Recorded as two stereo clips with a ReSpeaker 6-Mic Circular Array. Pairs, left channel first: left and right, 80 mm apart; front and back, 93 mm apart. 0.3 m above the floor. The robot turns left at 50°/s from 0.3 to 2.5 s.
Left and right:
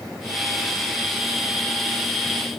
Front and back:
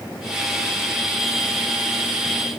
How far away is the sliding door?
I don't hear a sliding door.